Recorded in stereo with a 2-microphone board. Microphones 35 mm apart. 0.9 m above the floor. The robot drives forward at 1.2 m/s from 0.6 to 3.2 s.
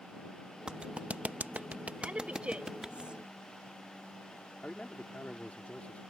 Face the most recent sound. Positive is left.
turn(degrees=45)  # may be behind; listen again after turning